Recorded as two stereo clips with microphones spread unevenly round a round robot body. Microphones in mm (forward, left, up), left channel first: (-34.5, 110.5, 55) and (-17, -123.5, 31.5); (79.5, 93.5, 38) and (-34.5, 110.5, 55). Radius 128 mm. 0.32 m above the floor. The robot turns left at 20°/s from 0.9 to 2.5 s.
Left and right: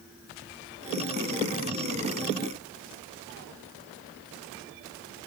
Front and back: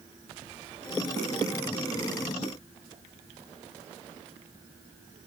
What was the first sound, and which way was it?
Only background noise.